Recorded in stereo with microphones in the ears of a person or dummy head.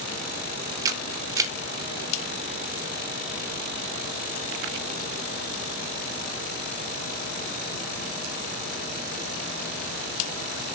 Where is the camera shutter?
20° right (ahead or behind), 0.8 m.